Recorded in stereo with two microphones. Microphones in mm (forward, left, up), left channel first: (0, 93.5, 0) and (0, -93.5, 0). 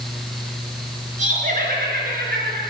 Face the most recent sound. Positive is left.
turn(degrees=-60)  # may be behind; listen again after turning